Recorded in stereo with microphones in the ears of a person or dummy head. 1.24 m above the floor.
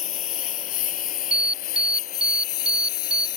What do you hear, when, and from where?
0.0 s a lawn mower: 35° left (ahead or behind); by 3.4 s 45° left (ahead or behind)
1.3 s an alarm: 5° right (ahead or behind)